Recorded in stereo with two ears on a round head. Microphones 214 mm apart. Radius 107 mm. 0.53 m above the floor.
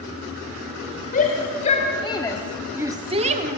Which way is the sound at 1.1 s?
35° left (ahead or behind).